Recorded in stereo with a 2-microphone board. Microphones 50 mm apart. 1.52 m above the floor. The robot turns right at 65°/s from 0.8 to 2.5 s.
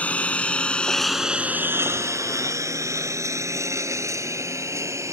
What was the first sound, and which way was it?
A lawn mower, 30° left (ahead or behind).